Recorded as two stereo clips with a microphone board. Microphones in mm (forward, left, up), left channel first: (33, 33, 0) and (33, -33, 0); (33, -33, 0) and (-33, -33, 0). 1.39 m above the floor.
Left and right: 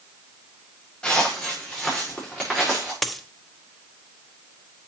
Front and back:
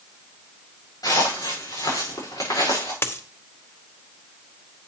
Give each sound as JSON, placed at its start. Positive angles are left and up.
{"t": 1.0, "sound": "footsteps", "azimuth_deg": 10, "distance_m": 6.0}
{"t": 3.0, "sound": "a dropped coin", "azimuth_deg": 5, "distance_m": 0.9}